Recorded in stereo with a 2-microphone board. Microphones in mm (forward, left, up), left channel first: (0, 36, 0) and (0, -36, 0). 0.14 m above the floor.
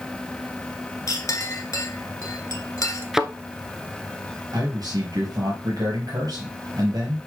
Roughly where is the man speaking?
Right.